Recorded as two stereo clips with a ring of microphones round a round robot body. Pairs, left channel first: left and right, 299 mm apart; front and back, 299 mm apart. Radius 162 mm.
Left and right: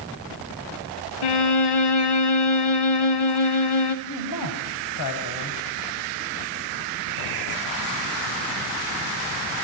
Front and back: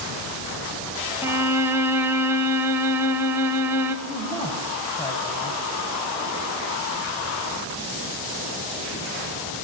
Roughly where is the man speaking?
Left.